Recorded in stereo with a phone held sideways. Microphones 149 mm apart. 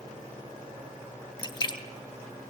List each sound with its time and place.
1.4 s a splash: 35° left (ahead or behind), 1.0 m